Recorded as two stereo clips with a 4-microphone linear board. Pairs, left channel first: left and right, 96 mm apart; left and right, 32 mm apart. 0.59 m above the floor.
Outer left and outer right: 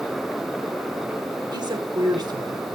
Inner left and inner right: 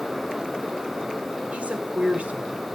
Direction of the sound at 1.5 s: 45° right (ahead or behind).